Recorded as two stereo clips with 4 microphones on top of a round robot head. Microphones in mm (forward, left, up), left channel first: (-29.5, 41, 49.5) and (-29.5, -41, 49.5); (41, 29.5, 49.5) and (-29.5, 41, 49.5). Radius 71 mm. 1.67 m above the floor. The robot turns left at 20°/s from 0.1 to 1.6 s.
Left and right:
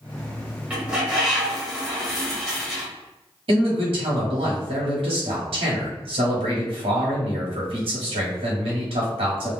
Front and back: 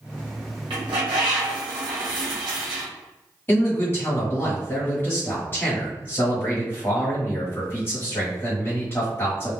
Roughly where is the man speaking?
Right.